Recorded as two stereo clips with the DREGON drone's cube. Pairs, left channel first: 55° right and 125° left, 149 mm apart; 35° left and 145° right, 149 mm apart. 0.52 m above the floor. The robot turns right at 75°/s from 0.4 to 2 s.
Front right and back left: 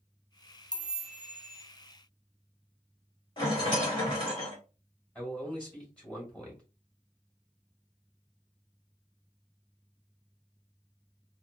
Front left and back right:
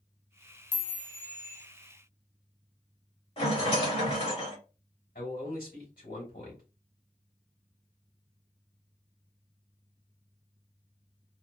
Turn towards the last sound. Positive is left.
turn(degrees=25)